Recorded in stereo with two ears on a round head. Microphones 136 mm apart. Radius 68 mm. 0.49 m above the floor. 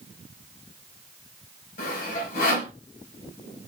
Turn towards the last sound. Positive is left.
turn(degrees=65)  # may be behind; listen again after turning